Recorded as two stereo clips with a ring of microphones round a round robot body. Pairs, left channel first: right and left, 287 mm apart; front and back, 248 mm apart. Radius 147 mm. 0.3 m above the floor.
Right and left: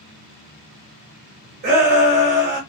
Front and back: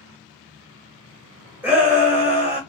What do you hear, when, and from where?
1.6 s a shout: 100° left, 1.1 m